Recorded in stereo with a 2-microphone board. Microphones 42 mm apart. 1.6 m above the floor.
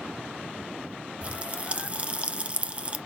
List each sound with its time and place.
1.2 s a pop: 30° right (ahead or behind), 0.6 m